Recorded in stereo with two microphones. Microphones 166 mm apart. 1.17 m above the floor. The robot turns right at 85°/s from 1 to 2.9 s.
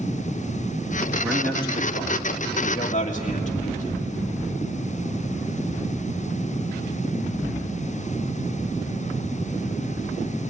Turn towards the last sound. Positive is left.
turn(degrees=135)